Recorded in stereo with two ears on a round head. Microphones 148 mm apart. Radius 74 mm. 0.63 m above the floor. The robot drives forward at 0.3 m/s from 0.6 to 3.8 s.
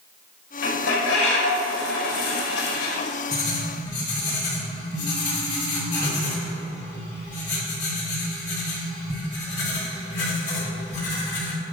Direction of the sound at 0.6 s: 75° left (ahead or behind).